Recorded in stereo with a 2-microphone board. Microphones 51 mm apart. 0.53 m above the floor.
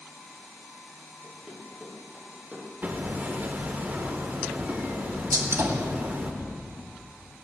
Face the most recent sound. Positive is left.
turn(degrees=-75)  # may be behind; listen again after turning